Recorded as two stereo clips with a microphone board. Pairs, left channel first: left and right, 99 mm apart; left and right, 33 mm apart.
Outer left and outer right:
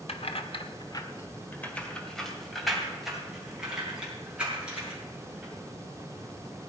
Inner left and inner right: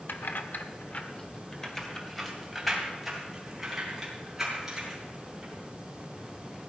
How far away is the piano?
No piano in this recording.